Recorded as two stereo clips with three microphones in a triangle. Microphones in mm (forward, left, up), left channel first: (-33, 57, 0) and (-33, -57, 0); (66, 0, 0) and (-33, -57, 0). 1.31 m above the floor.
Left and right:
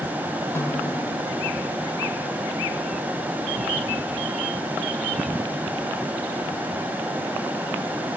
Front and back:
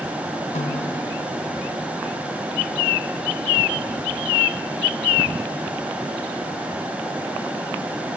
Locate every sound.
0.6 s a snare drum: 20° left, 3 m